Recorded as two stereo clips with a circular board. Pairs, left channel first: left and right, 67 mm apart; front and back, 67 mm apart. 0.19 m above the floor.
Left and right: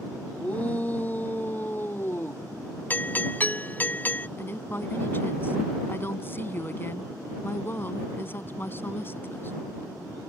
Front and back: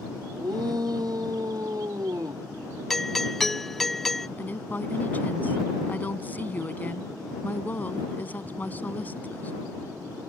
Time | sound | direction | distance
0.4 | a shout | 160° left | ?
2.9 | a doorbell | 80° left | ?
4.4 | a woman speaking | 50° left | ?